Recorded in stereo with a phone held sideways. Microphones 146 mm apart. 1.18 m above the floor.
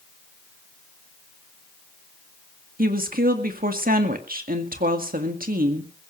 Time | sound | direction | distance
2.8 | a woman speaking | 80° right | 1.9 m